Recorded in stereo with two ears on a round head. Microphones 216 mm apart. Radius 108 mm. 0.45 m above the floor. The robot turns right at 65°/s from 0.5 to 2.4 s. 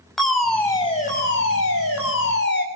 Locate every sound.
0.2 s a fire alarm: straight ahead, 5 m; by 2.6 s 125° left, 5 m